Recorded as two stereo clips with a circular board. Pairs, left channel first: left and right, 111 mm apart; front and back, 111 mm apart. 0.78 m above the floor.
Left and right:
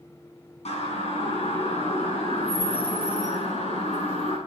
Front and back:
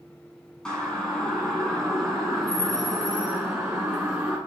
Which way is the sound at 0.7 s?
85° left.